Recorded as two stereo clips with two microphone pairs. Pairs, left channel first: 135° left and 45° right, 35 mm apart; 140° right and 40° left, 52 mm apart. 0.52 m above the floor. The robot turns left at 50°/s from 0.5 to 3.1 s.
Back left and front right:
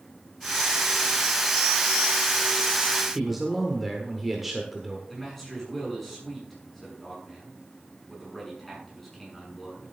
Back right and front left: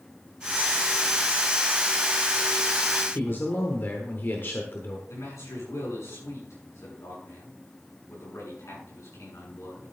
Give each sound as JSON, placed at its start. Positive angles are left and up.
{"t": 3.1, "sound": "a man speaking", "azimuth_deg": -125, "distance_m": 1.4}
{"t": 5.1, "sound": "a man speaking", "azimuth_deg": -140, "distance_m": 6.5}